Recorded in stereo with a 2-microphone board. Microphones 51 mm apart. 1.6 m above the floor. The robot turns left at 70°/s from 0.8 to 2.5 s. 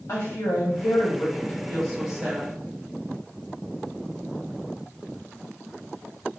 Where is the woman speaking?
80° left, 1.0 m; by 2.5 s 40° right, 1.0 m.